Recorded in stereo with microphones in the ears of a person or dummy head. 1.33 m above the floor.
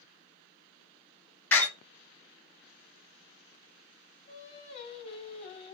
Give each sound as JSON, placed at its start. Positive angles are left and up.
{"t": 1.5, "sound": "a door slam", "side_deg": 10, "distance_m": 1.1}
{"t": 4.3, "sound": "singing", "side_deg": 35, "distance_m": 2.0}